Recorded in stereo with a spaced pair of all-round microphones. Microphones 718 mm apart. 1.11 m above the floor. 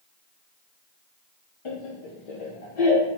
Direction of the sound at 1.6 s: 45° left (ahead or behind).